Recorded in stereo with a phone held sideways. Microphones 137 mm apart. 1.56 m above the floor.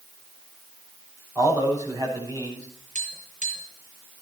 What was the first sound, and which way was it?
A man speaking, 30° right (ahead or behind).